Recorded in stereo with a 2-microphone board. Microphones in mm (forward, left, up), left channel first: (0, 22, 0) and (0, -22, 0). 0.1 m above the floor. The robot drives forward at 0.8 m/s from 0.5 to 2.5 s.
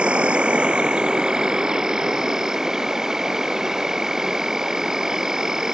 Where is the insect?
25° right (ahead or behind); by 5.7 s 10° right (ahead or behind).